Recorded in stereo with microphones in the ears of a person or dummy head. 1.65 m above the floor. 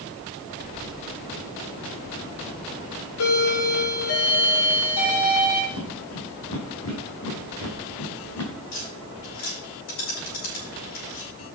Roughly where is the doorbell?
Left.